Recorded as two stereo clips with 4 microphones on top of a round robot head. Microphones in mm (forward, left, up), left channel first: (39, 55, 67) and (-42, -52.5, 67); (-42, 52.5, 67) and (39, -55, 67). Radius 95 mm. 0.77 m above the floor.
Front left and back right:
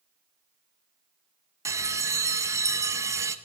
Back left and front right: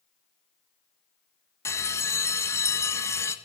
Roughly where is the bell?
Behind.